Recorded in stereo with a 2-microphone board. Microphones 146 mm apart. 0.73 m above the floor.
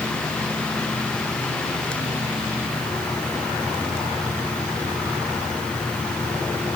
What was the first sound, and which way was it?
Only background noise.